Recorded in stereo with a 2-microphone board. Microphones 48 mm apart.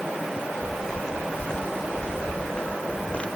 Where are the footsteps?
5° left (ahead or behind); by 3.3 s 30° left (ahead or behind).